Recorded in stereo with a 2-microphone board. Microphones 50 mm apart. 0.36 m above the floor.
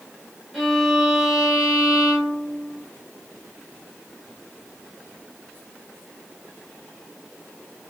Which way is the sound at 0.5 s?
5° right (ahead or behind).